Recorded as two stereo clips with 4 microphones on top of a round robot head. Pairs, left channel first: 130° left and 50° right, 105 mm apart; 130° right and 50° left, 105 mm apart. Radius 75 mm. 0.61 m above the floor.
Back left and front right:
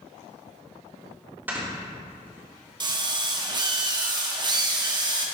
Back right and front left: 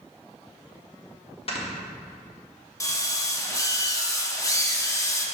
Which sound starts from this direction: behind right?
Snoring, at 1.5 s.